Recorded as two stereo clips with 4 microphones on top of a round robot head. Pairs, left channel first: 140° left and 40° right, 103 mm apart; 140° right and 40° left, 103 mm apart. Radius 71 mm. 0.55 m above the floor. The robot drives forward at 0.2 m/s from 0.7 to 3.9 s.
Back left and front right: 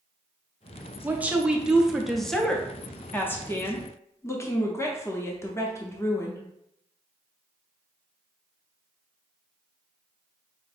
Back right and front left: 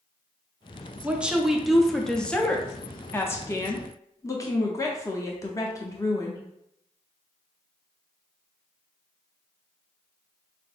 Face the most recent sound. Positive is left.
turn(degrees=-175)